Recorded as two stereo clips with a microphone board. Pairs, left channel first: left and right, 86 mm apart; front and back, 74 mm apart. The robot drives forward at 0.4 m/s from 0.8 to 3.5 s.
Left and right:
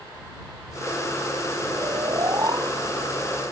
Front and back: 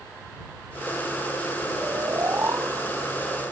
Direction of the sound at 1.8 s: 130° right.